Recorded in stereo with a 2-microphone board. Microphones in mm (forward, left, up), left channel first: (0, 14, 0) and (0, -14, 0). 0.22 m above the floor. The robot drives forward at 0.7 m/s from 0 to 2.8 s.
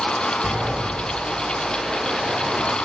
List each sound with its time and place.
0.4 s a sliding door: 70° right (ahead or behind), 3 m; by 2.8 s 50° right (ahead or behind), 3.5 m